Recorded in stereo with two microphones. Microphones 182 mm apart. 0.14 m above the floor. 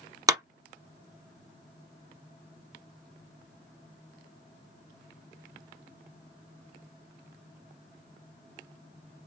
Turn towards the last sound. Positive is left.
turn(degrees=-20)  # may be behind; listen again after turning